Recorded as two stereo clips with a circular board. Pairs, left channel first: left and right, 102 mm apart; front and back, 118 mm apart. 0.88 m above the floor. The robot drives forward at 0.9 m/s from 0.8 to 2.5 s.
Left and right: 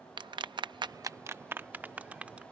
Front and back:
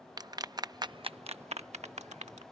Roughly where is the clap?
Behind right.